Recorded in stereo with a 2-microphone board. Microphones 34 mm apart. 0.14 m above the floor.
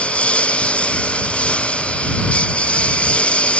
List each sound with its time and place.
0.0 s a lawn mower: 40° left (ahead or behind)